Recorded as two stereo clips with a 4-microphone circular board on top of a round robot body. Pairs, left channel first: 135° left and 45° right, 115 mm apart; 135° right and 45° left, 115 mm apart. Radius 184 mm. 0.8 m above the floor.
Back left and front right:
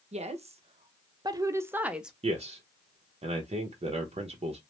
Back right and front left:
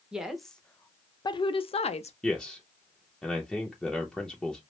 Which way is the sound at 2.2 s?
50° right.